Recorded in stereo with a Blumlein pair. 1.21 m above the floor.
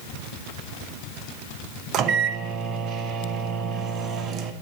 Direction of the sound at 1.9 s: 30° right.